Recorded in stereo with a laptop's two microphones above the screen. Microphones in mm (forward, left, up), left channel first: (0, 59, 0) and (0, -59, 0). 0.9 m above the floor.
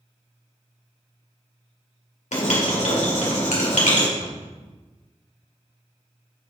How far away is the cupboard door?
About 1.4 m.